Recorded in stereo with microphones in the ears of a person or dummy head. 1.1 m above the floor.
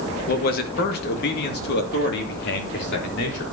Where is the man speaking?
50° left (ahead or behind), 1.7 m; by 3.4 s 60° left (ahead or behind), 4 m.